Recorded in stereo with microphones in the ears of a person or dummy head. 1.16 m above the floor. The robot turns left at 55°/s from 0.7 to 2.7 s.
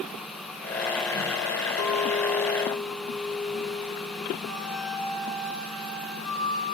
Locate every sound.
1.8 s a clink: 80° left, 2.0 m; by 4.3 s 30° left, 2.0 m
4.5 s a flute: centre (ahead or behind), 7.5 m